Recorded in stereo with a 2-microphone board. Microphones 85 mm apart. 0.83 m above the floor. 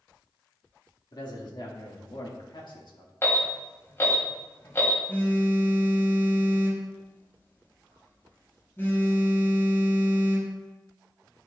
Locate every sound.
1.1 s a man speaking: 55° left (ahead or behind), 2 m; by 3.1 s 60° left (ahead or behind), 1.8 m
3.2 s an alarm: 30° left (ahead or behind), 2 m
5.1 s a phone buzzing: 30° left (ahead or behind), 3 m